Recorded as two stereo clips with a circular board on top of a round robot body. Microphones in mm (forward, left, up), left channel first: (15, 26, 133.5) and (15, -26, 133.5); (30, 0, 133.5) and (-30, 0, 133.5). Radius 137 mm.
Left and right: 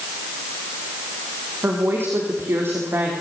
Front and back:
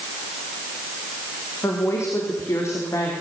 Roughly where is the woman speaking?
Ahead right.